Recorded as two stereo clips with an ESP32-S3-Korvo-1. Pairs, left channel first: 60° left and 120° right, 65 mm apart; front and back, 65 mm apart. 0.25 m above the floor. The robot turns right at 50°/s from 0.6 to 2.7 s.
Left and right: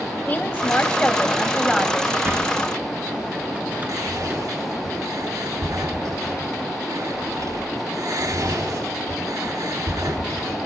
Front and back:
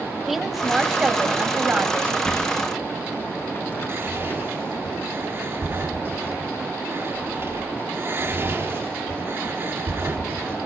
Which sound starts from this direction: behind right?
Whispering, at 3.9 s.